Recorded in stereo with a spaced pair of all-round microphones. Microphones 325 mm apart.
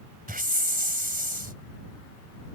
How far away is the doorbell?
I don't hear a doorbell.